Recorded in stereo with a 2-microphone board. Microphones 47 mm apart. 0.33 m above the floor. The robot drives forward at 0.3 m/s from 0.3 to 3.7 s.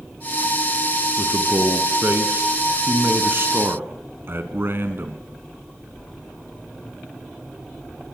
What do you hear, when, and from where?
1.2 s a man speaking: 40° right (ahead or behind), 3.5 m; by 5.2 s 50° right (ahead or behind), 3 m